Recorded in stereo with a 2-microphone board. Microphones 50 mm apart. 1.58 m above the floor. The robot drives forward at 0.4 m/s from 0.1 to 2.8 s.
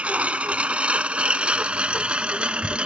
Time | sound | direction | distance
0.0 | a lawn mower | 25° right (ahead or behind) | ?